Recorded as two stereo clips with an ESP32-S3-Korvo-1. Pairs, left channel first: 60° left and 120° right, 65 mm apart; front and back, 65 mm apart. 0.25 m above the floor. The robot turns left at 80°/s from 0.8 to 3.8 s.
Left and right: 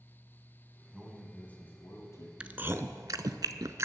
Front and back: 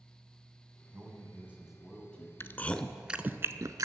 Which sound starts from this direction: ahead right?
Chewing, at 2.4 s.